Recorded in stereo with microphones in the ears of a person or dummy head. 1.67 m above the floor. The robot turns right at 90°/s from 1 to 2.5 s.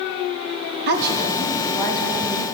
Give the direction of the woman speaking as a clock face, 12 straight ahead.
2 o'clock.